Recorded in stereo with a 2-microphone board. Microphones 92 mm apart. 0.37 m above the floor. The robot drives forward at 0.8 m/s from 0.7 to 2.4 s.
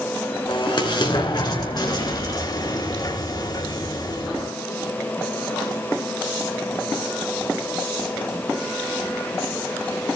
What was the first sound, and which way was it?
An explosion, 55° left (ahead or behind).